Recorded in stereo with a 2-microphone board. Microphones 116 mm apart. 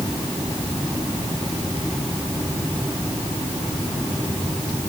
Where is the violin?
No violin in this recording.